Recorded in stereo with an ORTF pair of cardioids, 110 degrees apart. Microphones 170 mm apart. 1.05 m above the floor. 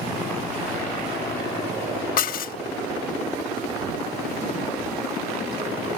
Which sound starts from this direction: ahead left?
Dishes clattering, at 2.2 s.